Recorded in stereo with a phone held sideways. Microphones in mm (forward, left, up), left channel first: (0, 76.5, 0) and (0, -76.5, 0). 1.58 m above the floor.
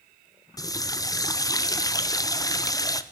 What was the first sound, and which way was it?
A running tap, 25° left (ahead or behind).